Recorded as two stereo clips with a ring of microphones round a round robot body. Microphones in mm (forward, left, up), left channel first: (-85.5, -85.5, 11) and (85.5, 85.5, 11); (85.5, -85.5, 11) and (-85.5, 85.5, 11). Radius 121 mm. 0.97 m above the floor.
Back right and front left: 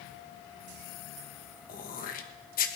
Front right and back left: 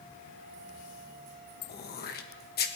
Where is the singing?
I don't hear singing.